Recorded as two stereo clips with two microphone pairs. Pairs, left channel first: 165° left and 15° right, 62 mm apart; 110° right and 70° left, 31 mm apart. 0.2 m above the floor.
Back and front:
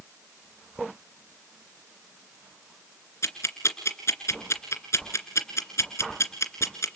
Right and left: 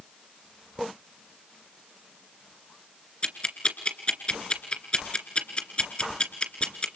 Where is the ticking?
160° right, 2.5 m.